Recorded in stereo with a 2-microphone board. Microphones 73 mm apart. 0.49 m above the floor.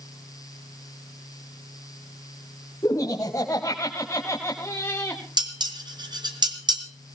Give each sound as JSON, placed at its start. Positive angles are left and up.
{"t": 2.8, "sound": "laughter", "side_deg": 55, "distance_m": 3.5}
{"t": 5.4, "sound": "dishes clattering", "side_deg": -80, "distance_m": 2.5}